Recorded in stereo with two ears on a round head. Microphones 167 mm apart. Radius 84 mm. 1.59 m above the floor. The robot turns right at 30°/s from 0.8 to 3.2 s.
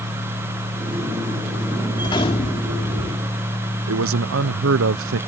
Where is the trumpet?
I don't hear a trumpet.